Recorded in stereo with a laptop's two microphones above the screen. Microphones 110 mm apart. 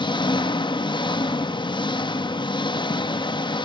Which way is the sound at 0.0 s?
45° left (ahead or behind).